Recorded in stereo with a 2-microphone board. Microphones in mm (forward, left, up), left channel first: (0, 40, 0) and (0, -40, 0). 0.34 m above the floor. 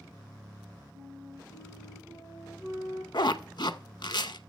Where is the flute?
50° right (ahead or behind), 7 m.